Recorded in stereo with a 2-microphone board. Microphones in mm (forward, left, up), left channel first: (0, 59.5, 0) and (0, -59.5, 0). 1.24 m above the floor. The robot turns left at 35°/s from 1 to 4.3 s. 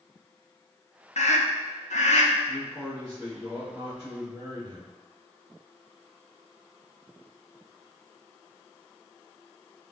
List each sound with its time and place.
1.2 s a scream: 110° left, 0.7 m; by 2.3 s 70° left, 0.7 m
2.5 s a man speaking: 20° left, 1.4 m; by 4.9 s 40° right, 1.4 m